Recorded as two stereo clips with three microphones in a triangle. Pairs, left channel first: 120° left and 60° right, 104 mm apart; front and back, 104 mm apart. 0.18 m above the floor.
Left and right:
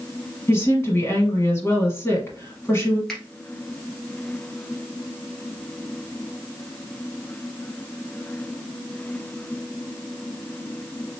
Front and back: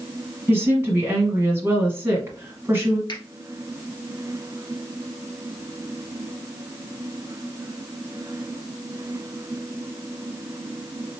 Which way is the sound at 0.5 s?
145° left.